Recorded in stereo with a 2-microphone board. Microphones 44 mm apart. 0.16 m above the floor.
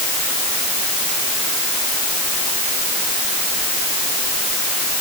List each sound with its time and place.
Only background noise.